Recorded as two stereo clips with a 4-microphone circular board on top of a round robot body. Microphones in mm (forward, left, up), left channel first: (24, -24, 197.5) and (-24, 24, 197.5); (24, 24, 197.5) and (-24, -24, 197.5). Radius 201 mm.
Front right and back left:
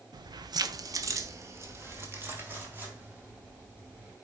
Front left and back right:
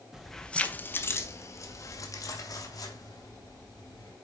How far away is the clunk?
I don't hear a clunk.